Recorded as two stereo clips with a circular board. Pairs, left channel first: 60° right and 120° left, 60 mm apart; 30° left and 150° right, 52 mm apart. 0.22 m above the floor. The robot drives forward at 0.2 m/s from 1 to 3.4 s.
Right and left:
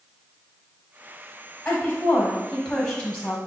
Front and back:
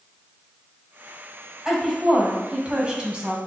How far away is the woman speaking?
About 1.1 m.